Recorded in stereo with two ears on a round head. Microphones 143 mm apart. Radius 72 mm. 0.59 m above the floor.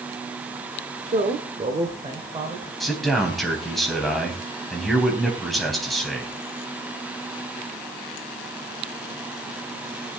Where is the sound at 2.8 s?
Centre (ahead or behind), 4 m.